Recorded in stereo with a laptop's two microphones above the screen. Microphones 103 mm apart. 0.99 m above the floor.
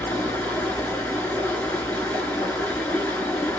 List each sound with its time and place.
0.0 s running water: 15° left (ahead or behind), 1.0 m